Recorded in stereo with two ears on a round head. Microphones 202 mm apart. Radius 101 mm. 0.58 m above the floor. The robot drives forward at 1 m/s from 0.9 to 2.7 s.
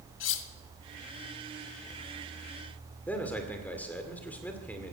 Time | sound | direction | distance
0.2 | cutlery clinking | 55° left (ahead or behind) | 0.9 m
3.1 | a man speaking | 5° left (ahead or behind) | 2 m